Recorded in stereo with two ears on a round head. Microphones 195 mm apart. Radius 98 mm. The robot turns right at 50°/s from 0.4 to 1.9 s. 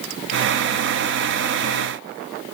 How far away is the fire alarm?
I don't hear a fire alarm.